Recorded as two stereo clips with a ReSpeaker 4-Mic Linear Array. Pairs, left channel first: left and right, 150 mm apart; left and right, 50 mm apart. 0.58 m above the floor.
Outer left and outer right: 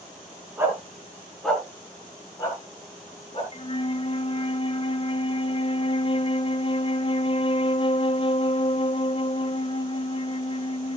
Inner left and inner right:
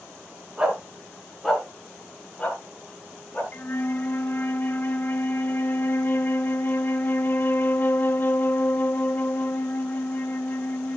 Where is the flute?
35° left (ahead or behind), 0.7 m.